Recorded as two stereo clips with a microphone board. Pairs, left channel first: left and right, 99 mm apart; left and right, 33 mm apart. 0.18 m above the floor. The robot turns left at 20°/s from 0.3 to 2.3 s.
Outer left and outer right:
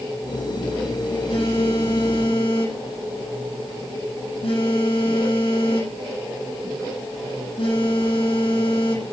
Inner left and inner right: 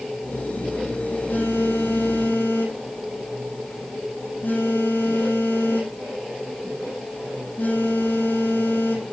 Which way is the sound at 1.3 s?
75° left (ahead or behind).